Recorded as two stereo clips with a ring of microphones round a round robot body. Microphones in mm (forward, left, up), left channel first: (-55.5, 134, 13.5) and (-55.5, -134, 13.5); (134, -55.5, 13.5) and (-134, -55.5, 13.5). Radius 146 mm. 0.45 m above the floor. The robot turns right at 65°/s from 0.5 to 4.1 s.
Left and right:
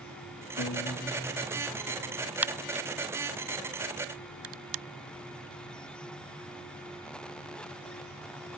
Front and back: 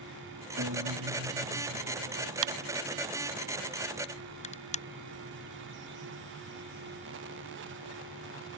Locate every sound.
0.6 s a guitar: 130° left; by 2.3 s 115° right
2.4 s a crack: 175° right; by 4.8 s 65° right